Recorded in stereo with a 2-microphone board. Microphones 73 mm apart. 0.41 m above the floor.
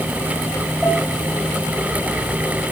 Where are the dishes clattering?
10° right (ahead or behind), 5.5 m.